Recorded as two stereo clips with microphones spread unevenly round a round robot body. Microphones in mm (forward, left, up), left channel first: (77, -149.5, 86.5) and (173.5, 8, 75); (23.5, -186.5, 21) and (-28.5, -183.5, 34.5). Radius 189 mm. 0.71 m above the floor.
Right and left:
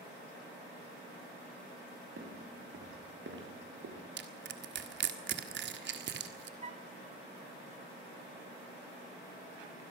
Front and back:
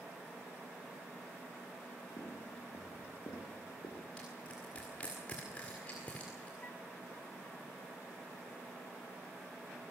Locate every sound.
2.2 s footsteps: 40° left, 6 m; by 4.0 s 45° left, 4 m
4.2 s crushing: 70° left, 1.6 m
6.6 s a flute: 25° left, 1.1 m